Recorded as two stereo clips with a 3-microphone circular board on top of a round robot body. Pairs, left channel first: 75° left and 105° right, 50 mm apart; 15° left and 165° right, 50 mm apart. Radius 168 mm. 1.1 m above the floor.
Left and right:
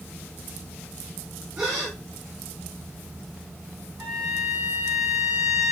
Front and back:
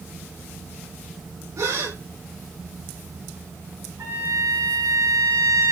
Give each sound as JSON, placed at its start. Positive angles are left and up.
{"t": 1.6, "sound": "a gasp", "azimuth_deg": 180, "distance_m": 4.0}
{"t": 4.0, "sound": "a trumpet", "azimuth_deg": 180, "distance_m": 4.5}